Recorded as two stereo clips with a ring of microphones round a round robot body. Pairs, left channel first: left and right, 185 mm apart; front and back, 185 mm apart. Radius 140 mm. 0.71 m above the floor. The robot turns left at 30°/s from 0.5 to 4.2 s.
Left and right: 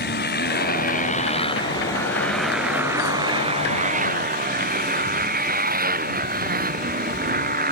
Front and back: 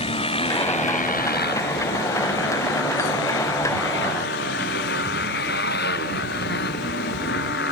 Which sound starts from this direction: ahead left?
A motorcycle, at 0.0 s.